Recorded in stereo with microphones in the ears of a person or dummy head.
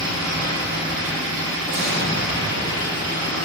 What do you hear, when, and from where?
0.0 s an engine running: 50° right (ahead or behind), 1.5 m
1.7 s an explosion: 50° right (ahead or behind), 0.8 m